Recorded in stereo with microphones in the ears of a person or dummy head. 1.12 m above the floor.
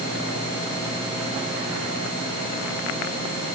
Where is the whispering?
I don't hear whispering.